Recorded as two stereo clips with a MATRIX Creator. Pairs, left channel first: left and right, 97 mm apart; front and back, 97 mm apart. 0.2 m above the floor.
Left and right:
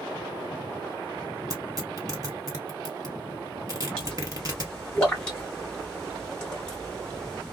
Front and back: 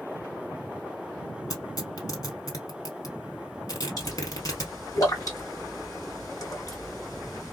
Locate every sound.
1.5 s tearing paper: 45° right, 1.9 m
4.0 s a pop: 15° left, 2 m